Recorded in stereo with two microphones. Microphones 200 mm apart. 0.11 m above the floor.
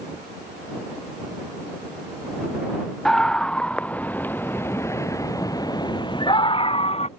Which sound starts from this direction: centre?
A scream, at 3.0 s.